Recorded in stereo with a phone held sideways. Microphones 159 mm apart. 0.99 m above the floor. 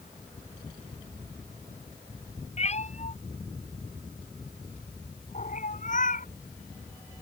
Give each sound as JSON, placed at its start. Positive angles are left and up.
{"t": 2.6, "sound": "a cat meowing", "side_deg": 45}